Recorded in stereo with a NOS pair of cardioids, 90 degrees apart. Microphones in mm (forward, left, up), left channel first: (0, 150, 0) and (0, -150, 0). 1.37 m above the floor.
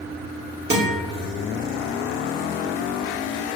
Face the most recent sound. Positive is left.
turn(degrees=-35)